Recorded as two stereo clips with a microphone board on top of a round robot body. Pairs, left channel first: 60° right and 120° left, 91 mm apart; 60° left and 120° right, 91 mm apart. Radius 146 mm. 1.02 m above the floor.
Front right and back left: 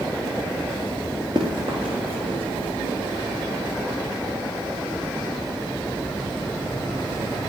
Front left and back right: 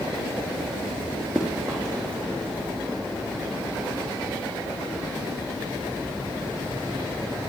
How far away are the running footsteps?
About 1.3 m.